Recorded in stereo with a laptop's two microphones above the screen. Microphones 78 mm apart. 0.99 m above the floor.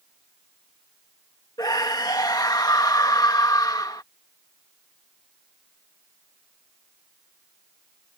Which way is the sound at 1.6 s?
55° left (ahead or behind).